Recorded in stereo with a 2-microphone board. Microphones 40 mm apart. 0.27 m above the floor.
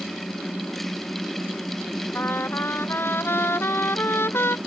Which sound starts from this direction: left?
A trumpet, at 2.1 s.